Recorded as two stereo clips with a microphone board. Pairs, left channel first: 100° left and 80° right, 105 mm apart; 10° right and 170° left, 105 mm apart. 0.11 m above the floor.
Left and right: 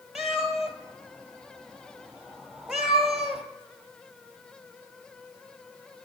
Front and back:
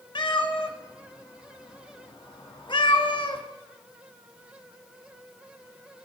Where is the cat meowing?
5° left, 0.7 m.